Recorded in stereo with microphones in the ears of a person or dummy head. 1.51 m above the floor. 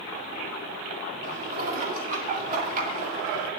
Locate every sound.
1.2 s dishes clattering: 45° right (ahead or behind), 1.9 m